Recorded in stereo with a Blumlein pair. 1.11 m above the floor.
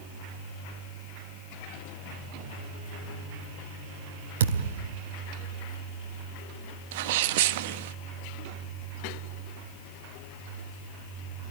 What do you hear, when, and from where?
4.4 s a thud: 60° right, 2.5 m
6.9 s a sneeze: 50° right, 1.5 m